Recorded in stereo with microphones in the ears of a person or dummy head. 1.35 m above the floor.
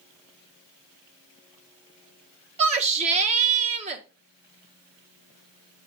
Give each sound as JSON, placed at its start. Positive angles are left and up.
{"t": 2.6, "sound": "a shout", "side_deg": -40, "distance_m": 1.4}